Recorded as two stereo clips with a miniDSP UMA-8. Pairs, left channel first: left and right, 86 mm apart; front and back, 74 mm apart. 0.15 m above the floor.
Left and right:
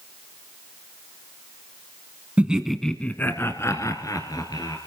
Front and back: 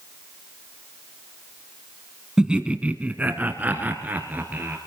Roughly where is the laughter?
Behind right.